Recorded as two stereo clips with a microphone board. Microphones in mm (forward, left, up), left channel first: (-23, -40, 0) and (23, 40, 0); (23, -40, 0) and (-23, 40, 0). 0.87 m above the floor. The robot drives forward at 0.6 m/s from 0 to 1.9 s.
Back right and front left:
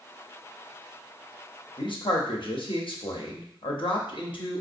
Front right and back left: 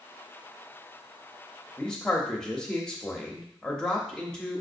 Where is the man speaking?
135° right, 0.8 m; by 4.6 s 140° right, 0.8 m.